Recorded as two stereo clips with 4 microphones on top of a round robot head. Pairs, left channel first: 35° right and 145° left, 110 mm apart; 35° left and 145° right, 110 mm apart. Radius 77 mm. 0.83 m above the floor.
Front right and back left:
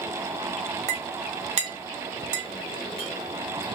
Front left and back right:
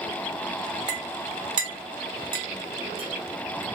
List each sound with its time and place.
0.9 s a clink: 170° left, 0.8 m